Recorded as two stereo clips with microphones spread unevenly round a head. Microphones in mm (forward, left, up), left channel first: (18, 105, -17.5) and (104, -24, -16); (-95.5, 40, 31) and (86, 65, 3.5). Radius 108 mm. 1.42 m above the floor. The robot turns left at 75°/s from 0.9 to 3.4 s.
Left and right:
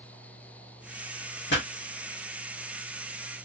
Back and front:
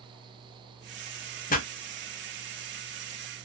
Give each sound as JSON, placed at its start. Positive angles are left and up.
{"t": 1.5, "sound": "a pop", "azimuth_deg": 145, "distance_m": 1.1}